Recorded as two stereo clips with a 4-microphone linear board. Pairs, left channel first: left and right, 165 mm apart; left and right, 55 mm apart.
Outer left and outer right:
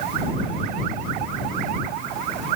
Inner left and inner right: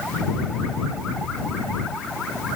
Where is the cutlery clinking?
No cutlery clinking in this recording.